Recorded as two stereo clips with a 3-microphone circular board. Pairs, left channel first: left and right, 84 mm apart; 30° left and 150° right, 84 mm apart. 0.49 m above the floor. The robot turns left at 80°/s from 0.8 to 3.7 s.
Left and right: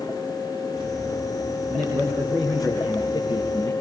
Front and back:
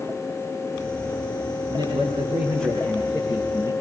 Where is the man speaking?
115° right, 6 m; by 3.7 s 85° left, 6 m.